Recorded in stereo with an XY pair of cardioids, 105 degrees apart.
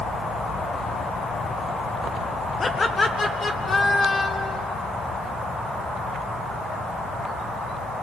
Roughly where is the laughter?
Ahead left.